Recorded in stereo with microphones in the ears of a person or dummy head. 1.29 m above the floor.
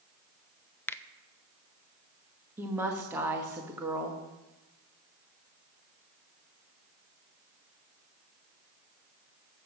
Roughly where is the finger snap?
Centre.